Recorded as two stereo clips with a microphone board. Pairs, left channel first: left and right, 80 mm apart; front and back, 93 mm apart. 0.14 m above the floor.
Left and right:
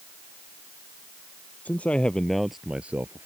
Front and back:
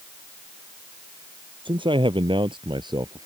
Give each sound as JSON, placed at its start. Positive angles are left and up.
{"t": 1.6, "sound": "a man speaking", "azimuth_deg": 160}